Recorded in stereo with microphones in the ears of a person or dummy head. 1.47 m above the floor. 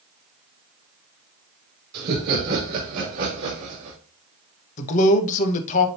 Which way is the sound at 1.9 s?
60° right (ahead or behind).